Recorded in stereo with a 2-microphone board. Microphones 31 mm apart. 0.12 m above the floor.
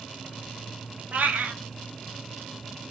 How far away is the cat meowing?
About 0.7 m.